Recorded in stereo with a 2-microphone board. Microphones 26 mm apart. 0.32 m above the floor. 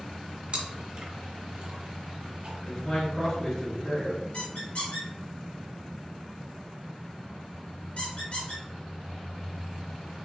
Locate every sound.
0.5 s chewing: 45° right (ahead or behind), 1.1 m
2.6 s a man speaking: 30° left (ahead or behind), 1.7 m
4.3 s a squeak: 60° left (ahead or behind), 1.8 m